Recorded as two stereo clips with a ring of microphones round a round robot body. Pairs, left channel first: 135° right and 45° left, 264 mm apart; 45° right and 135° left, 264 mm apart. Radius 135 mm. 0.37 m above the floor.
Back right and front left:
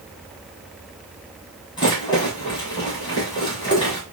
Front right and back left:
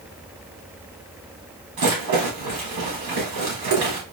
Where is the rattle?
150° left, 2 m.